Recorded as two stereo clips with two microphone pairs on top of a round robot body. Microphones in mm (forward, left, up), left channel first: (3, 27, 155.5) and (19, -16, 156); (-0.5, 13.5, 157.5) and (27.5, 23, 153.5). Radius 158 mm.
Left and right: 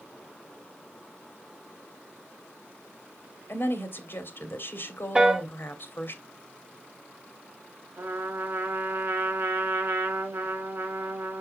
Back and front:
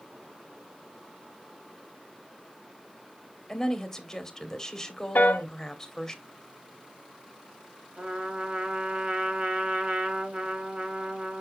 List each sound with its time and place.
3.5 s a woman speaking: 120° left, 2 m
5.2 s a piano: 140° right, 1.0 m
8.0 s a trumpet: 30° right, 1.9 m